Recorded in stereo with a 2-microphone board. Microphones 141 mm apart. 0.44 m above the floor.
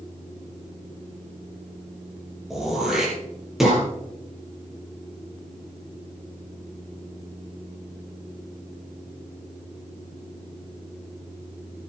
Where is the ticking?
No ticking in this recording.